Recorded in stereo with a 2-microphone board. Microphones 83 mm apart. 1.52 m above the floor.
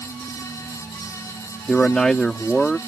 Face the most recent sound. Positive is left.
turn(degrees=5)  # may be behind; listen again after turning